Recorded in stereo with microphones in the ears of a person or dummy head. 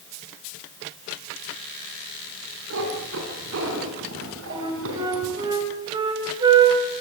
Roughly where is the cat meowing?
Right.